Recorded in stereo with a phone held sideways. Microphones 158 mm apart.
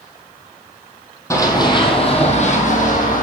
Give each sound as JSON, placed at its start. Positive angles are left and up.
{"t": 1.3, "sound": "running footsteps", "side_deg": 20, "distance_m": 1.3}